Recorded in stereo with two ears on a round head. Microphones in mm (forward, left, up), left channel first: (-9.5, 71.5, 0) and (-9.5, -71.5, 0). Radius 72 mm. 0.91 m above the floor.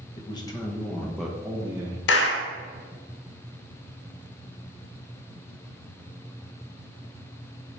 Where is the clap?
80° left, 0.9 m.